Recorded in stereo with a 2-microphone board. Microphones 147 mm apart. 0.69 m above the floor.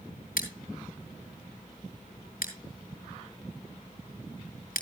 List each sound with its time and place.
0.4 s scissors: 80° left, 3.5 m